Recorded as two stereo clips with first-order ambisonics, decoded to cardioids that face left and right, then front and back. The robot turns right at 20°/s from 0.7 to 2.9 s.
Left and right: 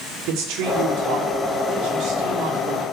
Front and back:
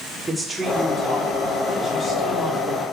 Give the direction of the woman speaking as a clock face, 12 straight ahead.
3 o'clock.